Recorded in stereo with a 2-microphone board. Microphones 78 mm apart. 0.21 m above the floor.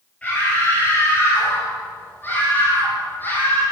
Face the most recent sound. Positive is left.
turn(degrees=20)  # may be behind; listen again after turning